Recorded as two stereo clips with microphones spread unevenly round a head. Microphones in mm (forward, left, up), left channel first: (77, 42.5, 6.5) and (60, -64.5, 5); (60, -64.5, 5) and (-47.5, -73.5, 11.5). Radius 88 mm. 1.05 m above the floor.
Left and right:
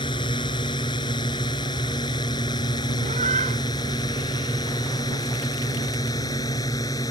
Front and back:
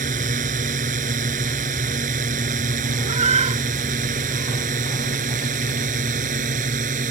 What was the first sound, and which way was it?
A drone, 150° left.